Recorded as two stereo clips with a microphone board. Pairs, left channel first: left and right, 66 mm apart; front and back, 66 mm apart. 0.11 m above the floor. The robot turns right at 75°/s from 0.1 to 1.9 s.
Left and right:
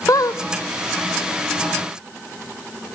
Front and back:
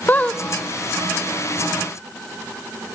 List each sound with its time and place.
0.1 s a squeak: 60° left, 0.7 m; by 0.4 s 85° left, 0.7 m